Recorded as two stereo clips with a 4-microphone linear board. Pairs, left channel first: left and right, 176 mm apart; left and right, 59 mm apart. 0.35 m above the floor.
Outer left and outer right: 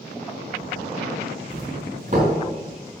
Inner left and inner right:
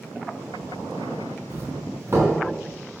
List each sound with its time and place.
1.5 s a doorbell: 45° right (ahead or behind), 4 m